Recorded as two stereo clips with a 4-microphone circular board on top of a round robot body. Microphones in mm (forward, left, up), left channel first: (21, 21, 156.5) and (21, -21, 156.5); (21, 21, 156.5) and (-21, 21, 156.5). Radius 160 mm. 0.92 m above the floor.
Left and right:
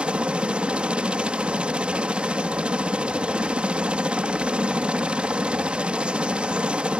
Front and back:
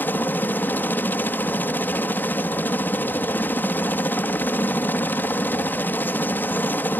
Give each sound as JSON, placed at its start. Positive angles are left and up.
{"t": 0.0, "sound": "a helicopter", "azimuth_deg": -30}